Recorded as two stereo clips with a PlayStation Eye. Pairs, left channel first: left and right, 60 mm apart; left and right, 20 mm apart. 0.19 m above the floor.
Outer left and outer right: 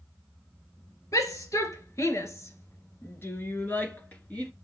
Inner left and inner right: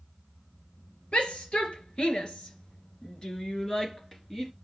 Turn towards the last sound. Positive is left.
turn(degrees=20)  # may be behind; listen again after turning